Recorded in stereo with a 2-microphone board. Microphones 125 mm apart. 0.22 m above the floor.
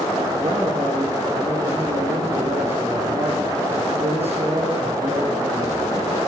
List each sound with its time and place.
0.3 s a man speaking: 15° right (ahead or behind), 6.5 m